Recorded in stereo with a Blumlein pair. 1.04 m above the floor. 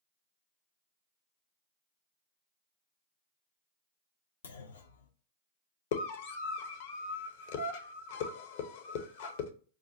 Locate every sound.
4.4 s a clunk: 65° left, 0.5 m
5.9 s a scream: 50° left, 0.8 m